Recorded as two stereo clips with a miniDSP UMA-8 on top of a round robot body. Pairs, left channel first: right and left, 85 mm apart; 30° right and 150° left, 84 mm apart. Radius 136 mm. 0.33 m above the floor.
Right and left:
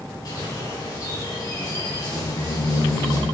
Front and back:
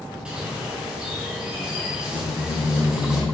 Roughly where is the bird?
Behind right.